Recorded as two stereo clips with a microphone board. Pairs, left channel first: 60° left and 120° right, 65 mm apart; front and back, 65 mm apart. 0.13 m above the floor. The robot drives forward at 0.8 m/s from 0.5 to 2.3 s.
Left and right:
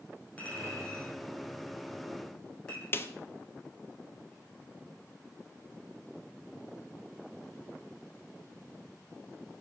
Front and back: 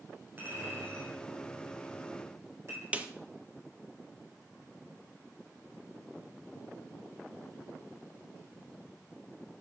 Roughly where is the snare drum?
Behind left.